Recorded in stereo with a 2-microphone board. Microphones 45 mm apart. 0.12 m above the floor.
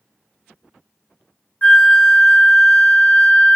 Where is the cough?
I don't hear a cough.